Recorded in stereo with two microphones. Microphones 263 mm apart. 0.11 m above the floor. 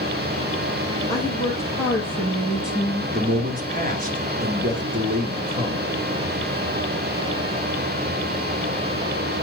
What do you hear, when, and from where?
1.1 s a woman speaking: 15° left (ahead or behind), 3.5 m; by 3.0 s 5° right (ahead or behind), 3.5 m
3.1 s a man speaking: 30° right (ahead or behind), 1.8 m